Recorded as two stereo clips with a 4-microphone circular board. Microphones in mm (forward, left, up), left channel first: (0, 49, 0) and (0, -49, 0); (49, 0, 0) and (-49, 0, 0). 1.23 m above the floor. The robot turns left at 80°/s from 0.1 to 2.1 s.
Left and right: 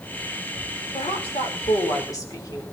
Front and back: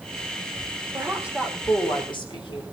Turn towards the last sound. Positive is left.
turn(degrees=35)